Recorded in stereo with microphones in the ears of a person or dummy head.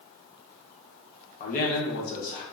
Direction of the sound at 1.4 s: 50° left (ahead or behind).